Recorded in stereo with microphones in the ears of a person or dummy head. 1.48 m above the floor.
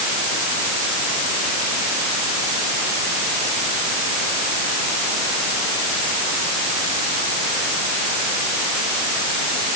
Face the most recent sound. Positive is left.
No sound to turn to.